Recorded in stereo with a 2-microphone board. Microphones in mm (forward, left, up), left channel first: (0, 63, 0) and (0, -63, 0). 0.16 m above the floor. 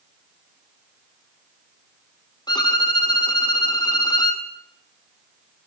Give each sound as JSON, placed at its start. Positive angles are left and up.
{"t": 2.5, "sound": "a violin", "side_deg": 35, "distance_m": 2.5}